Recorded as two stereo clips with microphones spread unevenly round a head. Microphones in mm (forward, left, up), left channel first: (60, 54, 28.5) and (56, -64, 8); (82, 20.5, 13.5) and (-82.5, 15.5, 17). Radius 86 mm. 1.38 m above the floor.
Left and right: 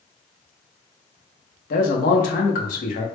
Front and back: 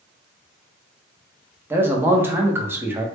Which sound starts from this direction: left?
A man speaking, at 1.7 s.